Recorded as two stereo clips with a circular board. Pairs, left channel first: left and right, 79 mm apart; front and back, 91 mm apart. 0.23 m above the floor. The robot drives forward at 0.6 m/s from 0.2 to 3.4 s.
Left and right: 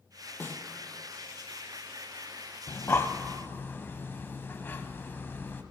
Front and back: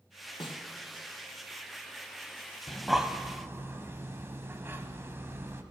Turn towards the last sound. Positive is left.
turn(degrees=135)